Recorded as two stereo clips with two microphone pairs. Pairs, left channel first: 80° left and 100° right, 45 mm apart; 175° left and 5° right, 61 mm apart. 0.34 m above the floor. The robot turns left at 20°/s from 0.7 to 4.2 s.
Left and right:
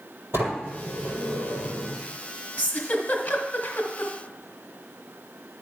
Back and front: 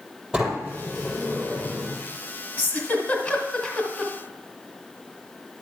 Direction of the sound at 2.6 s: 130° left.